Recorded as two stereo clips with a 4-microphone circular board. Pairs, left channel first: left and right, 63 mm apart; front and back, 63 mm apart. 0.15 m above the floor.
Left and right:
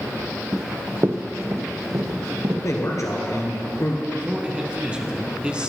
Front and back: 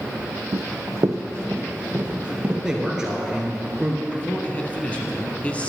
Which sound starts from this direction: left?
A man speaking, at 2.6 s.